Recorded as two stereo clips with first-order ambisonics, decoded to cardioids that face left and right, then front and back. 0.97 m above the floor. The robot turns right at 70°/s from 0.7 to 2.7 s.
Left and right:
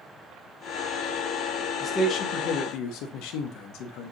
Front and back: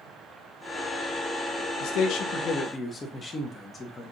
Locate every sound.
1.8 s a man speaking: 15° left, 0.8 m; by 4.1 s 75° left, 0.8 m